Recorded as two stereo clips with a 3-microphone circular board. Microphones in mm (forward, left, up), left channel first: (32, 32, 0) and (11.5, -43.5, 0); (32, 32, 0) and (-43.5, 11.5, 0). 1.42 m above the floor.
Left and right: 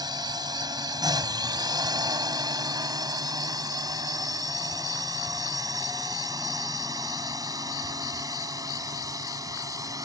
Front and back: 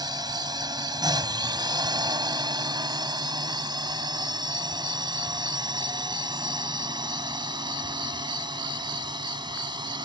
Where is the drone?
135° right; by 10.1 s 145° right.